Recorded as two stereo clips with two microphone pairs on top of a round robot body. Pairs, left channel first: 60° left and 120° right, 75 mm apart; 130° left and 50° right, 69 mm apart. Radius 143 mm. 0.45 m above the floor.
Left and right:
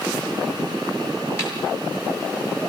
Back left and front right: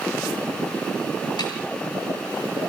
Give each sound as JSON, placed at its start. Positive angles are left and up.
{"t": 1.4, "sound": "a snare drum", "azimuth_deg": 115, "distance_m": 9.5}